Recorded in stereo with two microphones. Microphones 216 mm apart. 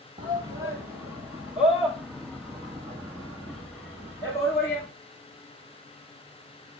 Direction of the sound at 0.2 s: 20° right (ahead or behind).